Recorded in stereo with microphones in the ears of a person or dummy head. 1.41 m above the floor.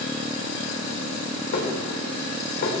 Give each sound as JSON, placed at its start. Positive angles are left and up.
{"t": 1.5, "sound": "dishes clattering", "side_deg": 50, "distance_m": 3.0}